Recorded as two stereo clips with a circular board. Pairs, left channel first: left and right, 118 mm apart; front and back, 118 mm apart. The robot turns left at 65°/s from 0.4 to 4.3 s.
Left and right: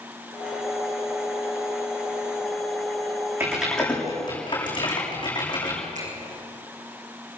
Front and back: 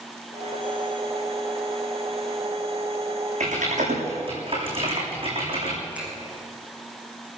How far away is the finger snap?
About 9 m.